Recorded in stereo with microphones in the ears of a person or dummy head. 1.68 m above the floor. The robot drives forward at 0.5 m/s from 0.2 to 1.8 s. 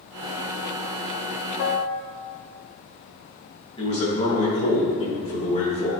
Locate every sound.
1.6 s a piano: 65° left (ahead or behind), 0.6 m; by 2.1 s 55° left (ahead or behind), 0.7 m
3.8 s a man speaking: 35° left (ahead or behind), 2.5 m